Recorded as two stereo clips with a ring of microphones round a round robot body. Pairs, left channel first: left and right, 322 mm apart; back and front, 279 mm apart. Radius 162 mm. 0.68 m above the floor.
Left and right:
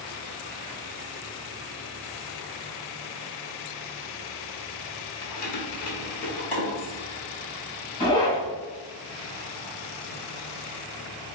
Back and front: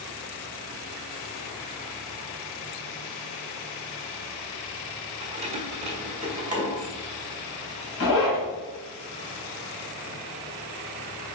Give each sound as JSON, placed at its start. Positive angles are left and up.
{"t": 5.2, "sound": "keys jangling", "azimuth_deg": 70, "distance_m": 1.1}
{"t": 8.0, "sound": "a zipper", "azimuth_deg": 165, "distance_m": 2.5}